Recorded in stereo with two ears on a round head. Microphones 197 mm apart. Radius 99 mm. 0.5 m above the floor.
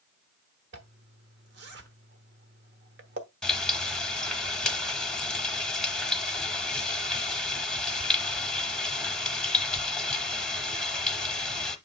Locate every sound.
0.7 s a zipper: 50° right (ahead or behind), 1.1 m
3.4 s frying: 5° left (ahead or behind), 0.9 m